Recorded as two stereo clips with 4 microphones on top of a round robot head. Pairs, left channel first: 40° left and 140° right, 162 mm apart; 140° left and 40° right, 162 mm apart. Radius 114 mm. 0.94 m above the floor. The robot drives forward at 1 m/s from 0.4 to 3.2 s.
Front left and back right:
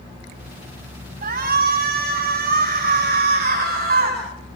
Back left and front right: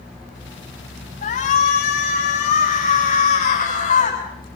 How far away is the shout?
About 6.5 m.